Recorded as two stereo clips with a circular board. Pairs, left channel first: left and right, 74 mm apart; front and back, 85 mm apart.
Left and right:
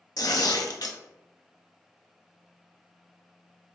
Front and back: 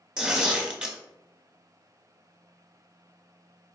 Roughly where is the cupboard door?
No cupboard door in this recording.